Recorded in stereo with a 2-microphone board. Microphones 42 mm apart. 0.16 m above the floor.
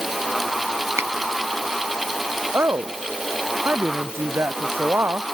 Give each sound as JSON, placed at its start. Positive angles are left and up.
{"t": 1.0, "sound": "a finger snap", "side_deg": -85}
{"t": 2.5, "sound": "a woman speaking", "side_deg": -75}